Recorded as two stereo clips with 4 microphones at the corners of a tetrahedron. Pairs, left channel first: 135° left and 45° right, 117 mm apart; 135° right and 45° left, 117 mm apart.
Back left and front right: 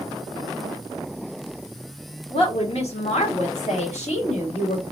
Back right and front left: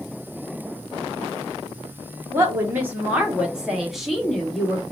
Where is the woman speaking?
110° left, 1.5 m; by 4.8 s 140° left, 2.5 m.